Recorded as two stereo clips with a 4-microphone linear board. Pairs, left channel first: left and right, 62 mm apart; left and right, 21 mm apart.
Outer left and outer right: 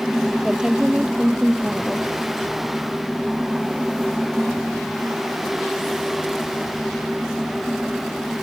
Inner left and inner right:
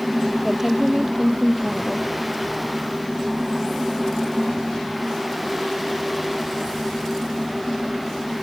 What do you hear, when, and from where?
0.4 s a woman speaking: 10° right (ahead or behind)